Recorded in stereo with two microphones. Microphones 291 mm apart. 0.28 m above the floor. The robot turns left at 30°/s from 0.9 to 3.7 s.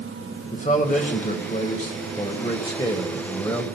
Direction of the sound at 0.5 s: 25° left (ahead or behind).